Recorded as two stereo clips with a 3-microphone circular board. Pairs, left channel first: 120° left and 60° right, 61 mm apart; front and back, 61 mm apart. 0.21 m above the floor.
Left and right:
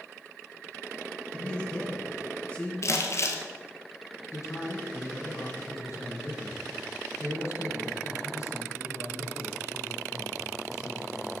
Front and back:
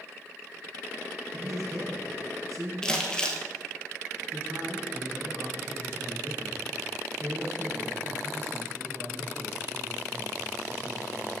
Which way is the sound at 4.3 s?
145° left.